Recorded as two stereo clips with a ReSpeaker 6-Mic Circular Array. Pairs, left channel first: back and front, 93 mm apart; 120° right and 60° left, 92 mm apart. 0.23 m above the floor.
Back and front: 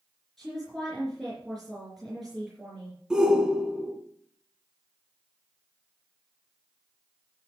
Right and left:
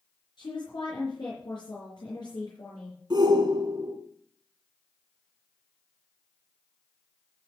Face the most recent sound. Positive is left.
turn(degrees=80)